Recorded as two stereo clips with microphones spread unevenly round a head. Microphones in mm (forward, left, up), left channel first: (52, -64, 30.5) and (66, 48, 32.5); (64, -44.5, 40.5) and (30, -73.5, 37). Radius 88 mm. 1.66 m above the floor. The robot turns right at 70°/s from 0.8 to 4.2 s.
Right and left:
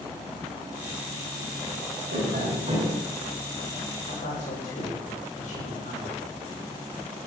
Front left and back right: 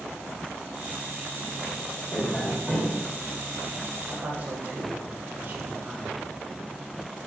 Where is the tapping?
105° left, 7 m; by 3.0 s 165° left, 7 m.